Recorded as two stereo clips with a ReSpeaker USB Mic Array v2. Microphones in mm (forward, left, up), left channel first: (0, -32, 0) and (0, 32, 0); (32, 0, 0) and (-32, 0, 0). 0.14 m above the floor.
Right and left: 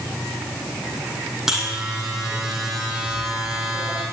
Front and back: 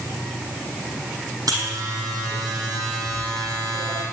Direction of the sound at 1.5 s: 170° left.